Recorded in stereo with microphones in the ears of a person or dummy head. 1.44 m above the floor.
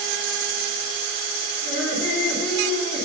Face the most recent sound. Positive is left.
turn(degrees=-15)  # may be behind; listen again after turning